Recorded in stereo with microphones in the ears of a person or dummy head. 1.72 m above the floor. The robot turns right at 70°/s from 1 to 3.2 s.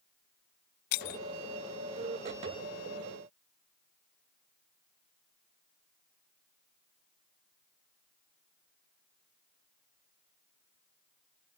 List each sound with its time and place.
0.9 s breaking glass: 60° left (ahead or behind); by 1.2 s 50° left (ahead or behind)